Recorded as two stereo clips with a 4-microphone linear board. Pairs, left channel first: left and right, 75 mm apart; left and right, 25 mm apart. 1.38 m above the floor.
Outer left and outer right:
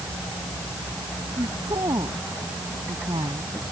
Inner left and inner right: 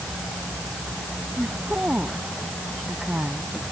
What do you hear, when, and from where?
1.4 s a woman speaking: 75° right (ahead or behind)